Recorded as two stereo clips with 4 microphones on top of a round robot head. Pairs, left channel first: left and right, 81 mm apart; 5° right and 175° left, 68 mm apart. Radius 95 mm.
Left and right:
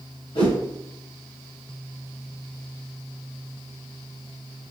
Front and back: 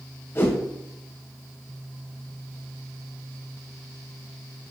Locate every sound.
0.3 s a whoosh: 50° left, 2.5 m